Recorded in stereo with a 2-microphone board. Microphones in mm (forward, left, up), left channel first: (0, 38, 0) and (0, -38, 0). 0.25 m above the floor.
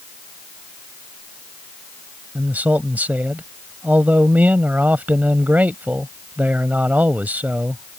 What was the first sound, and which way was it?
A man speaking, 20° right (ahead or behind).